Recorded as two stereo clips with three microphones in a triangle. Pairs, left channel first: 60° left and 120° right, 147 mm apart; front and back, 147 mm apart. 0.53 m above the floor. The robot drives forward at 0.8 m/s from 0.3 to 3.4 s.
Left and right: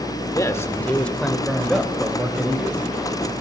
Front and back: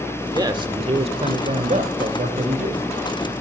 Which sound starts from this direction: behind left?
A man speaking, at 0.3 s.